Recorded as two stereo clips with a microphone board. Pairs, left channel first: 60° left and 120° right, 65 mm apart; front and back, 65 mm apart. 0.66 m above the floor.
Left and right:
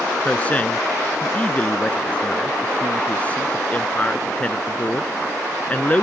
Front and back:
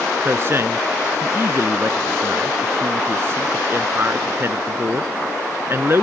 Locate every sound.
0.2 s a man speaking: 125° left